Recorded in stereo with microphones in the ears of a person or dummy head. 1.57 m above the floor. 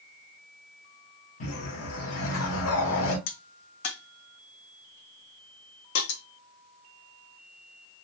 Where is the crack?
70° left (ahead or behind), 0.6 m.